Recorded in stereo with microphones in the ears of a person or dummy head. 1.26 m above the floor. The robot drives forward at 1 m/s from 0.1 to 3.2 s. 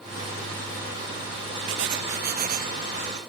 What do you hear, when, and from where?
1.7 s writing: 65° right (ahead or behind); by 3.2 s 35° right (ahead or behind)